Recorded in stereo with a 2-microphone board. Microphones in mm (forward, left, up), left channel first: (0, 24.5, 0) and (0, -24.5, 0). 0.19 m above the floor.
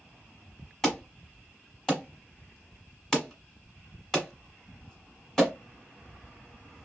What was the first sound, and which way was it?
An alarm, 10° left (ahead or behind).